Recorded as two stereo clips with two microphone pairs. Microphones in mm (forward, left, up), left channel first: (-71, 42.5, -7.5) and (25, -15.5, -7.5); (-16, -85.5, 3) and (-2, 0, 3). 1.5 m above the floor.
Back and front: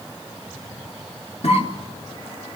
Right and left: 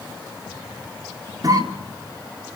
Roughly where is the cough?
Behind left.